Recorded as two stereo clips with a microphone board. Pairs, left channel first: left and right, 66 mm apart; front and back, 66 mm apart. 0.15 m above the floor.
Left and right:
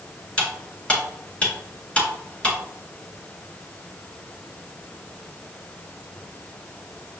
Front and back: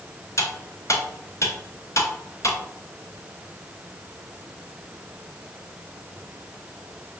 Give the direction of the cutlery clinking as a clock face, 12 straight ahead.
11 o'clock.